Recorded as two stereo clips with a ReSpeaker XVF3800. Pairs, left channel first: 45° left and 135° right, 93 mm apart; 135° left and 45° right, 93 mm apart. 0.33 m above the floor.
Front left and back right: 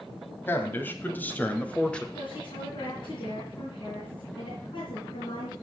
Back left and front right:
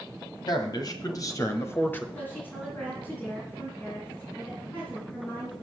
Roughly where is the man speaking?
Left.